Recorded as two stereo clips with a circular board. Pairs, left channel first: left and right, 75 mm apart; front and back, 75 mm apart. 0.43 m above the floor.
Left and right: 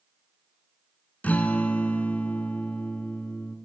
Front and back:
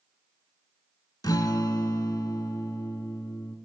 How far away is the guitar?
About 0.7 m.